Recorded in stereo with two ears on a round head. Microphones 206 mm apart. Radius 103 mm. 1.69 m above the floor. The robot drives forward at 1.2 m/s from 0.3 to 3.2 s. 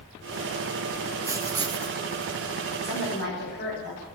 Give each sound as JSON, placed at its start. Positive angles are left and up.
{"t": 1.2, "sound": "writing", "side_deg": -15, "distance_m": 1.1}
{"t": 2.8, "sound": "a woman speaking", "side_deg": 50, "distance_m": 8.5}